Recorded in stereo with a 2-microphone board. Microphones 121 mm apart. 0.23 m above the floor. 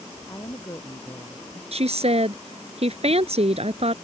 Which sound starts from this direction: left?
A woman speaking, at 0.3 s.